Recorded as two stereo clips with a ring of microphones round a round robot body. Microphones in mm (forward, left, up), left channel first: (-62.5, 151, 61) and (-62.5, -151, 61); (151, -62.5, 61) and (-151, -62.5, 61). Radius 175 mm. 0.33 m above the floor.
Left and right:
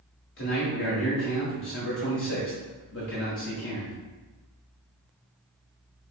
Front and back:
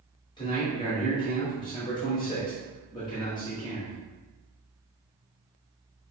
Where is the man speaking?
70° left, 1.1 m.